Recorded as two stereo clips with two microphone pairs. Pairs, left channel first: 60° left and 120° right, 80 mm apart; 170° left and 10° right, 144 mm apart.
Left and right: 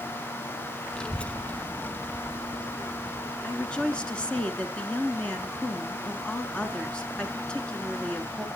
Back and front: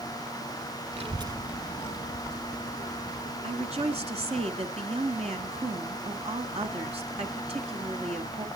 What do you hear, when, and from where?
0.9 s a child speaking: 20° right, 1.1 m; by 4.4 s 135° left, 4.5 m
3.4 s a woman speaking: 15° right, 2 m